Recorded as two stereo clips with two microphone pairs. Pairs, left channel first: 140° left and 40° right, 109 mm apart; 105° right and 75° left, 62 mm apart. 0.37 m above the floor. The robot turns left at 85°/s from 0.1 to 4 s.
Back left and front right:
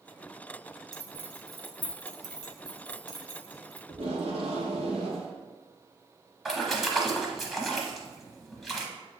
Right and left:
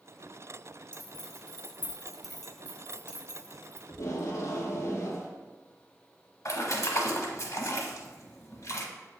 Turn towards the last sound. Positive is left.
turn(degrees=-125)